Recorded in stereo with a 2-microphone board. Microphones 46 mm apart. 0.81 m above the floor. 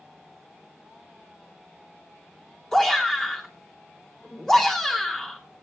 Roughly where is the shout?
Centre.